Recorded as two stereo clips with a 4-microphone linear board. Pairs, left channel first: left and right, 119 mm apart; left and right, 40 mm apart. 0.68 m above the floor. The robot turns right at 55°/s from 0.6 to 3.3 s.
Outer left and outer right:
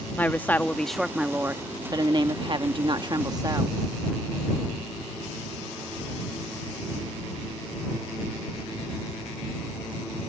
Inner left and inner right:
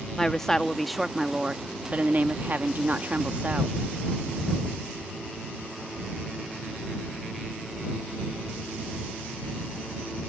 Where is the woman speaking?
160° left; by 3.8 s 50° right.